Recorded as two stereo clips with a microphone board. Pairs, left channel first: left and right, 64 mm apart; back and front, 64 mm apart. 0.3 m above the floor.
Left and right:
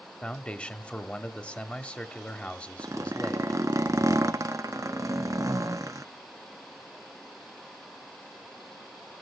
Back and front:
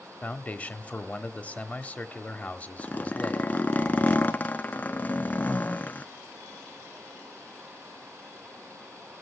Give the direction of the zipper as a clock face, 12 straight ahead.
4 o'clock.